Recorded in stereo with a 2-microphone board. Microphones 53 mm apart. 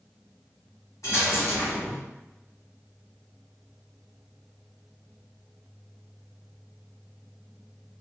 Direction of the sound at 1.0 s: 80° left.